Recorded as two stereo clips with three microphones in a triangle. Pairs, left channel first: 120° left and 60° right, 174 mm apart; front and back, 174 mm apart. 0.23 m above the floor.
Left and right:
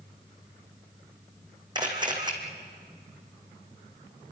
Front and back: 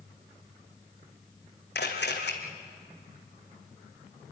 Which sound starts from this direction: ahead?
A camera shutter, at 1.8 s.